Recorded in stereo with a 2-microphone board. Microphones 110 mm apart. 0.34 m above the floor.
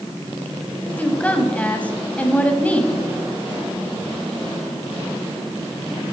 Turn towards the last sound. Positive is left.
turn(degrees=10)  # may be behind; listen again after turning